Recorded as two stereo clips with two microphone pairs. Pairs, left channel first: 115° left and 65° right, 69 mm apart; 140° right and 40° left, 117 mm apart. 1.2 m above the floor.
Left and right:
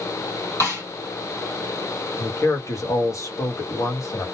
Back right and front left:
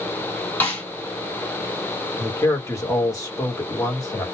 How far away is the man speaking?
About 1.1 m.